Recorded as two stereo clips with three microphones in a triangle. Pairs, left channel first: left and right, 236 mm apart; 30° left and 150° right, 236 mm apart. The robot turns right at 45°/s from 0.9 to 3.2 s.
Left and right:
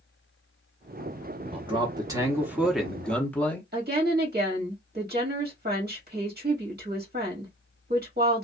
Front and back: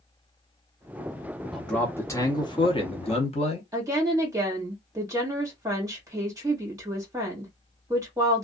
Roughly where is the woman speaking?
Right.